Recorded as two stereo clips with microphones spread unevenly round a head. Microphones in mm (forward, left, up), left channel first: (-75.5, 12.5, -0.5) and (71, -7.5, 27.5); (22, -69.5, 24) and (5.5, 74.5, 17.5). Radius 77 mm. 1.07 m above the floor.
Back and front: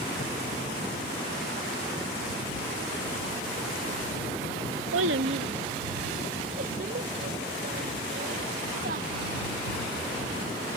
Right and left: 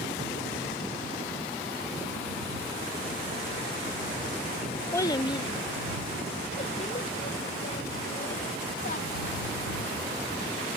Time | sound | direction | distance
4.9 | a child speaking | 10° right | ?